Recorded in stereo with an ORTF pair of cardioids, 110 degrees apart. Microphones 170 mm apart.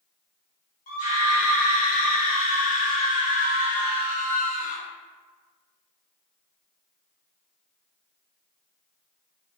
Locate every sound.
0.9 s a scream: 60° left, 1.2 m